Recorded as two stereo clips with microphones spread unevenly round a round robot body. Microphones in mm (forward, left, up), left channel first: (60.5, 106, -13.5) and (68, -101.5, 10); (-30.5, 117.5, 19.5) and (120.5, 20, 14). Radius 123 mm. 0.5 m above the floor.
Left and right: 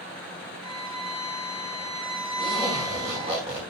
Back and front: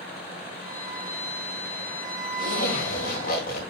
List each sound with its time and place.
0.6 s a violin: 115° right, 4.5 m
2.4 s a zipper: 160° right, 1.8 m